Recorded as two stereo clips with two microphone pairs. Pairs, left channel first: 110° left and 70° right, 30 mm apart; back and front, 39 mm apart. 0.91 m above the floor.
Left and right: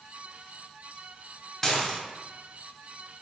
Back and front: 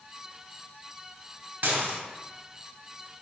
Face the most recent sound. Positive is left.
turn(degrees=30)